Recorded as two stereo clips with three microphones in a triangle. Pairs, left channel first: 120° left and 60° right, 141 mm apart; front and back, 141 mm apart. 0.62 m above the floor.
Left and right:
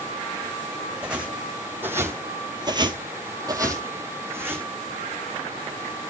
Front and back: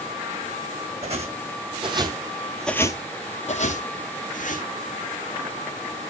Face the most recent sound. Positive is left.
turn(degrees=15)